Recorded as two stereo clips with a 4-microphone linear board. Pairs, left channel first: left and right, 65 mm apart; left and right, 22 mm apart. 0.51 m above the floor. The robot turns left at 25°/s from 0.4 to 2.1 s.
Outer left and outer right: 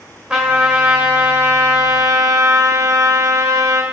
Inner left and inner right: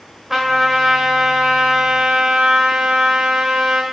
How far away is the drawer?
I don't hear a drawer.